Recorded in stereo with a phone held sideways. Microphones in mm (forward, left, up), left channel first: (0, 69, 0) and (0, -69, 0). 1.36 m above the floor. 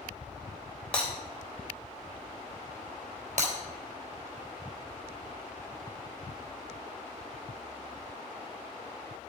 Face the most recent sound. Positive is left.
turn(degrees=-60)  # may be behind; listen again after turning